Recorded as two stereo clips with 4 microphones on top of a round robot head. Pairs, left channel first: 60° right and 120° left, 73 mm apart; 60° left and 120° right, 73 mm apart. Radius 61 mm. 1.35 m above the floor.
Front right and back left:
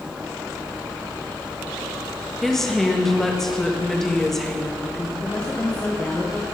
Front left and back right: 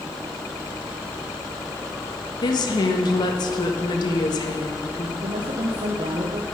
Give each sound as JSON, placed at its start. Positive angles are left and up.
{"t": 2.4, "sound": "a woman speaking", "azimuth_deg": 25, "distance_m": 1.4}
{"t": 5.2, "sound": "a woman speaking", "azimuth_deg": -135, "distance_m": 1.0}